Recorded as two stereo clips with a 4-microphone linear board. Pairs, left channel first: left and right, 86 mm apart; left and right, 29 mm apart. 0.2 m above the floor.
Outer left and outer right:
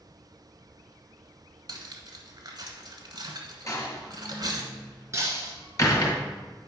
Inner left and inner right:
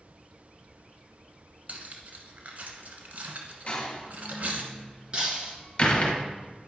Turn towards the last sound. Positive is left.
turn(degrees=-35)  # may be behind; listen again after turning